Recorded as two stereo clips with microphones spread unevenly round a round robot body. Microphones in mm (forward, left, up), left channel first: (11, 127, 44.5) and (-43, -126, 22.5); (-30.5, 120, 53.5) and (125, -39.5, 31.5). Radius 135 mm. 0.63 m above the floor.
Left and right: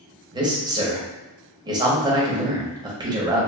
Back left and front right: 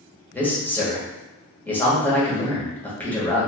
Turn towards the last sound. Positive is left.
turn(degrees=-140)